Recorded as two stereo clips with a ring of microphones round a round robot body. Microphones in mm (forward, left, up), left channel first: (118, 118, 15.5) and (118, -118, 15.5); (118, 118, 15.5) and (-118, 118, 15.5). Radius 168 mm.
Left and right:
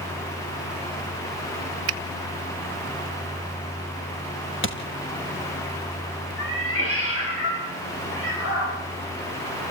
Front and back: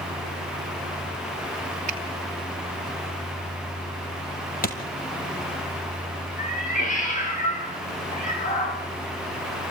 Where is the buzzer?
No buzzer in this recording.